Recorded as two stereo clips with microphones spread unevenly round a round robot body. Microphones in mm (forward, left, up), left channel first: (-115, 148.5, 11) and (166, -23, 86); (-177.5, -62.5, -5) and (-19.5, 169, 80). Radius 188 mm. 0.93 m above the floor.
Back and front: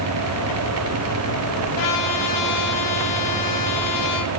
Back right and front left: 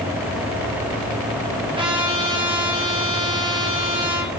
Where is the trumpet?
130° left, 7.5 m.